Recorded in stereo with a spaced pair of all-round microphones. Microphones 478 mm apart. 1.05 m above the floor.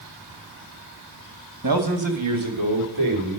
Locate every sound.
1.6 s a man speaking: 40° right (ahead or behind), 1.3 m; by 3.4 s 85° right, 3.5 m